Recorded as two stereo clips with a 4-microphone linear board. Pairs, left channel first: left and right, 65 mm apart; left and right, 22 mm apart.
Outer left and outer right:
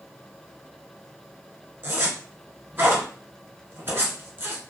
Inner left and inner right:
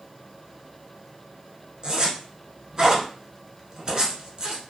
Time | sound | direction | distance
1.8 | a zipper | 35° right (ahead or behind) | 1.2 m